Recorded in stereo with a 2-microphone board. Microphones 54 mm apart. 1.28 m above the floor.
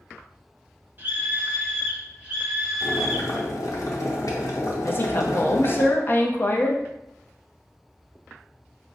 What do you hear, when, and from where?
1.0 s a scream: 35° right (ahead or behind), 0.9 m; by 3.5 s 20° right (ahead or behind), 2.5 m
2.8 s boiling: 75° left (ahead or behind), 0.8 m
4.8 s a woman speaking: 40° left (ahead or behind), 0.6 m